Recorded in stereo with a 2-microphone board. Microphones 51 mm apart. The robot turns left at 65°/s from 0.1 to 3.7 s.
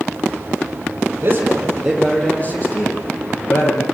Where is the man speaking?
130° right, 9.5 m; by 3.8 s 70° left, 9.5 m.